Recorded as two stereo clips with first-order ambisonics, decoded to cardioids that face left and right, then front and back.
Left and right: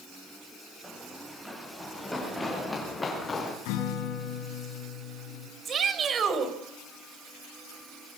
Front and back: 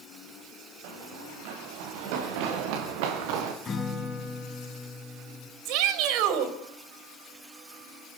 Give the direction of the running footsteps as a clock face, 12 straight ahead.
6 o'clock.